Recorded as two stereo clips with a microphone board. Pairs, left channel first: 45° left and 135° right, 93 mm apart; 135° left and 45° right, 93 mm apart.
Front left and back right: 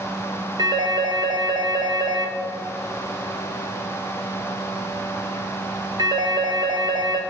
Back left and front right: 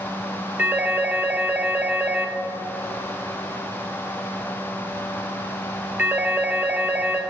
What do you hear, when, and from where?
0.6 s a phone ringing: 115° right, 1.2 m